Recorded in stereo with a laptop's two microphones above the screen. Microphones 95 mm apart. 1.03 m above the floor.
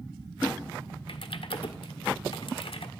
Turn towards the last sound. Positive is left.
turn(degrees=65)  # may be behind; listen again after turning